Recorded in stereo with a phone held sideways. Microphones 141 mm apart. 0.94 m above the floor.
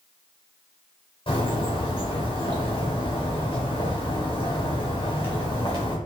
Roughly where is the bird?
Left.